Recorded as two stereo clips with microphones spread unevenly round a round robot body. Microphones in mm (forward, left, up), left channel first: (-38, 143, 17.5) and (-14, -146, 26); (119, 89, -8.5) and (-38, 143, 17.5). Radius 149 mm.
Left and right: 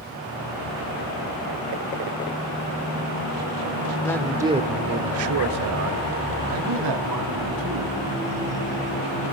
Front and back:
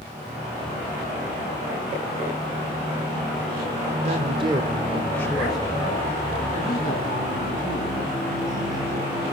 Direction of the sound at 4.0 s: 165° left.